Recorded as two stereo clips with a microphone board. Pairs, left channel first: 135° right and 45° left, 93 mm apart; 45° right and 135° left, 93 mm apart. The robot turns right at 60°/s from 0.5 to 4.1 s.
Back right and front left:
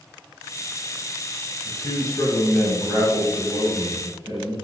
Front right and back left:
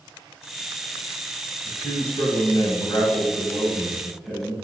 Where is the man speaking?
95° right, 1.9 m; by 4.5 s 50° left, 1.9 m.